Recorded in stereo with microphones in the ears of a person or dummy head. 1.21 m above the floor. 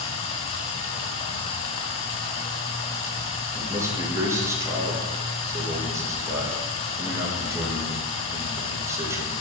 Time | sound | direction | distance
0.0 | running water | 35° left (ahead or behind) | 1.2 m
3.5 | a man speaking | 20° right (ahead or behind) | 1.8 m